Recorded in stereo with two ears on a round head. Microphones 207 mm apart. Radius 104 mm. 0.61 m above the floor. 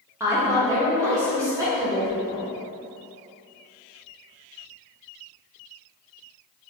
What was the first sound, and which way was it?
A woman speaking, 15° right (ahead or behind).